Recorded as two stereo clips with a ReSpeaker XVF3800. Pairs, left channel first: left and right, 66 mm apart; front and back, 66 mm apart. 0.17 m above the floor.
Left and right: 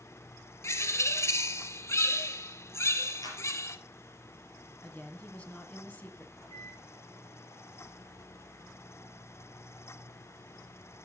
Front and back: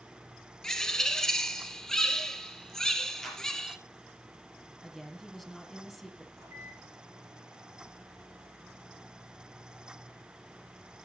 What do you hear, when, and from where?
0.6 s a bird: 75° left, 0.8 m
3.2 s a clap: 85° left, 3 m
4.8 s a woman speaking: 80° left, 1.5 m
6.4 s a microwave: 130° left, 8 m